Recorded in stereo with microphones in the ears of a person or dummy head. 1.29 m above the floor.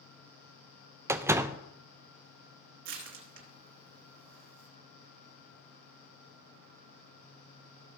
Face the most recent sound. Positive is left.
turn(degrees=-55)  # may be behind; listen again after turning